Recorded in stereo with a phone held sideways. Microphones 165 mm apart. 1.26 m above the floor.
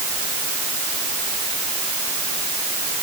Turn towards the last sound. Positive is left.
No sound to turn to.